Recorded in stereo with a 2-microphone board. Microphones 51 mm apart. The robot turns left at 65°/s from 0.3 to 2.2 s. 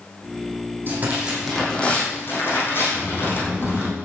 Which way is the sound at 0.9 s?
135° right.